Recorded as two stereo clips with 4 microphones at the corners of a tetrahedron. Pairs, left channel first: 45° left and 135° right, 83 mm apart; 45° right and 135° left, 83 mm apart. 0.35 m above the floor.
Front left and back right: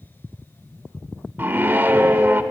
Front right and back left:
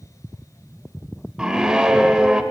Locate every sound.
1.4 s a scream: 155° right, 0.9 m